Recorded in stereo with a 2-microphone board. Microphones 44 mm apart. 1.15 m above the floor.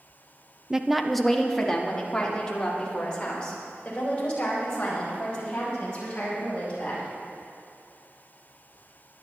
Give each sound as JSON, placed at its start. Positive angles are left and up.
{"t": 0.7, "sound": "a woman speaking", "side_deg": -15, "distance_m": 0.6}